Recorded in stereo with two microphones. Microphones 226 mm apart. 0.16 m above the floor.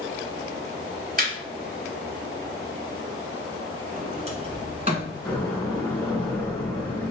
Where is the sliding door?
30° right (ahead or behind), 1.2 m.